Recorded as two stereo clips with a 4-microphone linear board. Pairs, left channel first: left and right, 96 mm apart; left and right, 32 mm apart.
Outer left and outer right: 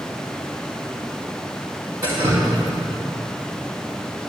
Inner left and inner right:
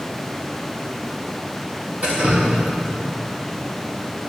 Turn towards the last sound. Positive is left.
turn(degrees=-35)  # may be behind; listen again after turning